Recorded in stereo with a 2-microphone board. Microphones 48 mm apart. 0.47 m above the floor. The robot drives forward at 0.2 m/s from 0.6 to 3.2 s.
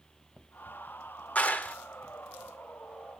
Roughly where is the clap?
Left.